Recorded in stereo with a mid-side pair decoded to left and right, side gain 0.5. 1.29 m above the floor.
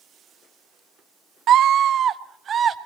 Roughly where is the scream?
Ahead right.